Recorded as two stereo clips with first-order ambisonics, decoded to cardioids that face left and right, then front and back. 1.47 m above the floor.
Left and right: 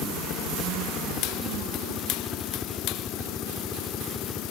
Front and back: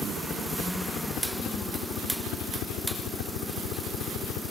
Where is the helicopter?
65° left; by 4.5 s 10° left.